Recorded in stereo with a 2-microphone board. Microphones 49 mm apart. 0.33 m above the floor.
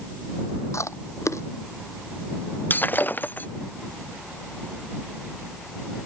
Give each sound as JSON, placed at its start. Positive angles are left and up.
{"t": 0.7, "sound": "chewing", "side_deg": 85}
{"t": 2.7, "sound": "breaking glass", "side_deg": 40}